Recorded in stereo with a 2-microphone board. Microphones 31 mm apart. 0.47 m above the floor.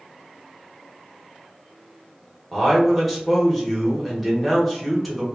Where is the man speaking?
Centre (ahead or behind), 1.1 m.